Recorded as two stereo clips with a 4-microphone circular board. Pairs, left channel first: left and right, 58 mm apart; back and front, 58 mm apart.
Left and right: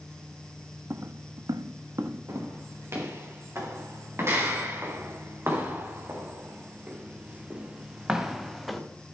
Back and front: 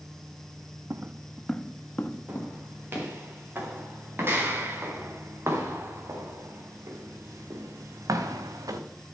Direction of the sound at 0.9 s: 45° right.